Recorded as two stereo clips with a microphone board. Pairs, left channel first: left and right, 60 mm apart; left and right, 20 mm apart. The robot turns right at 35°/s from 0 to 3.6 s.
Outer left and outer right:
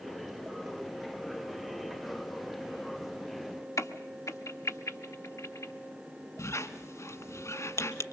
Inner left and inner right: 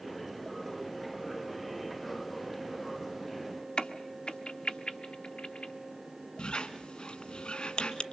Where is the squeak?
55° left (ahead or behind), 1.4 m.